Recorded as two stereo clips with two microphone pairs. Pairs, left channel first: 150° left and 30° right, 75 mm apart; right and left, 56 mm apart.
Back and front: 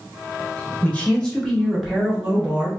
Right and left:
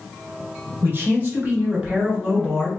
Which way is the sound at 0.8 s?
100° left.